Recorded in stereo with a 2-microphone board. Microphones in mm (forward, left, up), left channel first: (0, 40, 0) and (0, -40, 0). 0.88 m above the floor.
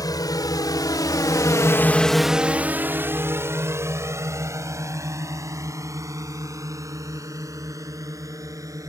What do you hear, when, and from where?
0.0 s a drone: 55° left (ahead or behind); by 8.9 s 45° right (ahead or behind)